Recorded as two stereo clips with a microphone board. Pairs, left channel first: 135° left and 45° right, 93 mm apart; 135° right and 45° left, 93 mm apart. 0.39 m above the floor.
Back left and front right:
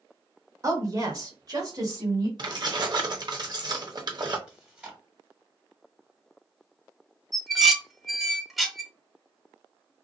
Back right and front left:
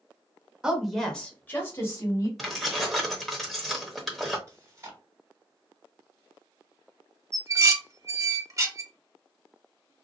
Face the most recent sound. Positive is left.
turn(degrees=40)